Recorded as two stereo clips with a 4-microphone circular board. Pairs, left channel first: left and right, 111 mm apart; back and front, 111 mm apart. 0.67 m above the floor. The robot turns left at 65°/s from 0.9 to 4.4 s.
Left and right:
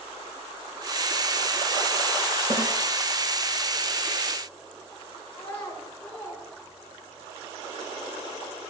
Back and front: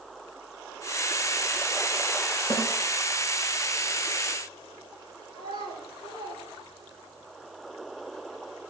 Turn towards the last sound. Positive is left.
turn(degrees=170)